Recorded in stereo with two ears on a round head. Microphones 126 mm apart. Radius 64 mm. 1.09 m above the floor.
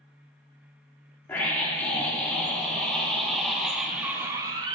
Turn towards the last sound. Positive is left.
turn(degrees=-30)  # may be behind; listen again after turning